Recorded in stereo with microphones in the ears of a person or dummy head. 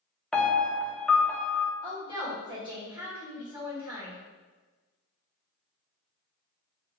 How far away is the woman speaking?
About 1.8 m.